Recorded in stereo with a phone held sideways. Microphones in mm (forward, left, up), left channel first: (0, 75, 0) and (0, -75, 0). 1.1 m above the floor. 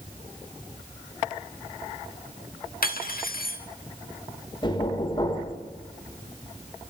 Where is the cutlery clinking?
75° left (ahead or behind), 1.2 m.